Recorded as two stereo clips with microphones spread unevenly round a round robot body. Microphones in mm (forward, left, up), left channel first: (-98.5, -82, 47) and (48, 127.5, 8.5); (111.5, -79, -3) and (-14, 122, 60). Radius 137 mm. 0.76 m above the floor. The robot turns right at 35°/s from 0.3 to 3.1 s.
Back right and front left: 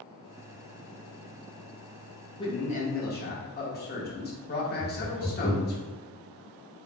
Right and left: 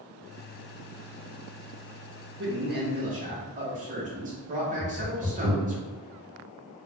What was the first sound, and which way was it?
A man speaking, 160° left.